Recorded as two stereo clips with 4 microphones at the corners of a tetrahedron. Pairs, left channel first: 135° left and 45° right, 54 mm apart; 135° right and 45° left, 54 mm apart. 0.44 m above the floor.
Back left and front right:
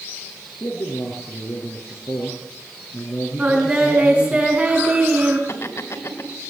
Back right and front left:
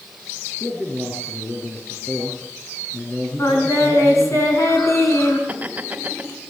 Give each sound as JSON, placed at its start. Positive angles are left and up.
{"t": 0.6, "sound": "a man speaking", "azimuth_deg": 170, "distance_m": 6.0}
{"t": 3.4, "sound": "singing", "azimuth_deg": -110, "distance_m": 6.0}
{"t": 5.5, "sound": "laughter", "azimuth_deg": 110, "distance_m": 3.0}